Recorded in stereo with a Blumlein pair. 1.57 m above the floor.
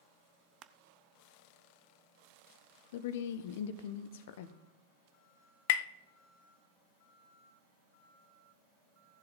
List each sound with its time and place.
0.6 s crushing: 30° right, 0.7 m
2.9 s a woman speaking: 55° left, 0.9 m
5.7 s tapping: 50° left, 0.5 m